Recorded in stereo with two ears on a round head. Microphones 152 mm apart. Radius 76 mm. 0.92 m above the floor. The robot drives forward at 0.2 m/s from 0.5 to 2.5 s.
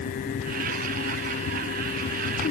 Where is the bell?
I don't hear a bell.